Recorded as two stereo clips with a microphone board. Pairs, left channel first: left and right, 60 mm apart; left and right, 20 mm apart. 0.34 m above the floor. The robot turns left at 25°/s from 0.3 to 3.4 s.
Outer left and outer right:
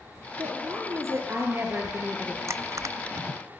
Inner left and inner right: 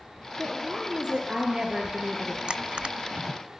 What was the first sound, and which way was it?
A woman speaking, 110° right.